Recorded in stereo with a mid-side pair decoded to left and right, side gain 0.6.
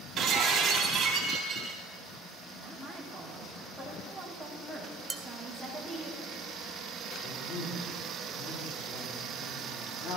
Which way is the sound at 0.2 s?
40° right.